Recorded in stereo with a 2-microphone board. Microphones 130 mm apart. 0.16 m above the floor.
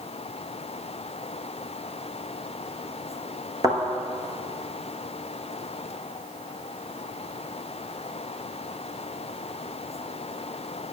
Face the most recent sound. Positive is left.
turn(degrees=-30)  # may be behind; listen again after turning